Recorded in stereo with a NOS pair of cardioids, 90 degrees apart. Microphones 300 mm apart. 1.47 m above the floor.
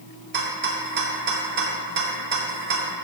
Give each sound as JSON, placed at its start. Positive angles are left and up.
{"t": 0.3, "sound": "a rattle", "azimuth_deg": -40, "distance_m": 0.5}